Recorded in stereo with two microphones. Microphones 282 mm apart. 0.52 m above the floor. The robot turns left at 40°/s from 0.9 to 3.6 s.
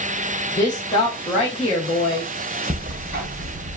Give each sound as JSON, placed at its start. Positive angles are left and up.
{"t": 0.6, "sound": "a woman speaking", "azimuth_deg": 155, "distance_m": 0.8}
{"t": 2.7, "sound": "ticking", "azimuth_deg": -25, "distance_m": 0.6}